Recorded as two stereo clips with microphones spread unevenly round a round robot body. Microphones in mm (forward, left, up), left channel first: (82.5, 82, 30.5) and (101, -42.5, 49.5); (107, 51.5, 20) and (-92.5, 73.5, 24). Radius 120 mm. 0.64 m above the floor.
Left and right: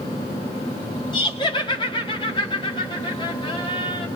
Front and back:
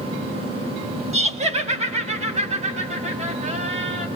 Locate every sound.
1.1 s laughter: 125° left, 1.5 m